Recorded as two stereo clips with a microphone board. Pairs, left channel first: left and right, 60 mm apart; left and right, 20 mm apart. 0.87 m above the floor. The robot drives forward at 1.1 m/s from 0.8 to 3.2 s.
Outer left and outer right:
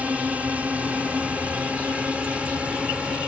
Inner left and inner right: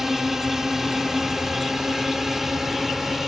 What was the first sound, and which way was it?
A drone, 25° right (ahead or behind).